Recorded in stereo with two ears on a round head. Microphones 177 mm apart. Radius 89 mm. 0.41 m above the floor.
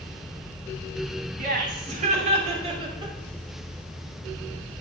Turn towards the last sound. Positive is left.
turn(degrees=-20)  # may be behind; listen again after turning